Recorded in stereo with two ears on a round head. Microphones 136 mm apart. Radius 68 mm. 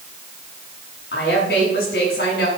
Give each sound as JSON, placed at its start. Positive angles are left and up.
{"t": 1.1, "sound": "a woman speaking", "side_deg": 75, "distance_m": 5.5}